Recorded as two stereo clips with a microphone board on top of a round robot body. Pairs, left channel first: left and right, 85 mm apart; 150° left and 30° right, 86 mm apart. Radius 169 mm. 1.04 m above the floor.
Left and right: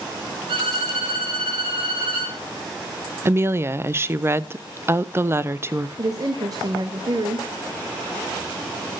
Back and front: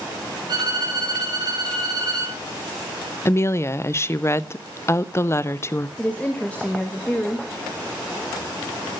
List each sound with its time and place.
0.5 s a violin: 75° right, 3 m
3.2 s a woman speaking: 150° right, 0.6 m
6.0 s a woman speaking: 135° right, 1.3 m